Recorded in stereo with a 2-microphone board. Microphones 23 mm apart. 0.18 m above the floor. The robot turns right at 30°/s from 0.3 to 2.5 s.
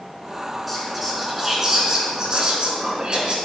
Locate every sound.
0.7 s whispering: straight behind, 2 m; by 3.4 s 125° right, 2 m